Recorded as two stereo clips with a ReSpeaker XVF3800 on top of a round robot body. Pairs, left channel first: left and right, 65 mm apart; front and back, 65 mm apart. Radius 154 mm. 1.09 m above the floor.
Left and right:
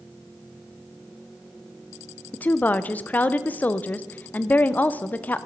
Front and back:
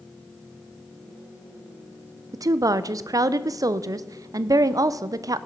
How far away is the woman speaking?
About 0.6 m.